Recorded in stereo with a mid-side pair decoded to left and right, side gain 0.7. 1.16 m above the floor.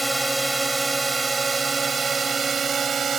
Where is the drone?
10° right; by 3.2 s 35° right.